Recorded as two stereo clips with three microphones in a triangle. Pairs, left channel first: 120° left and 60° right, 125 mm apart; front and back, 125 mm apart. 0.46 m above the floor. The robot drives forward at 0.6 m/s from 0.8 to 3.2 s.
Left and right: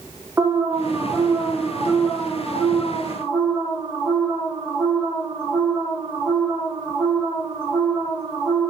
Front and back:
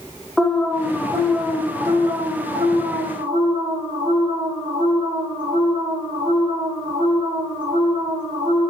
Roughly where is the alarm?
Right.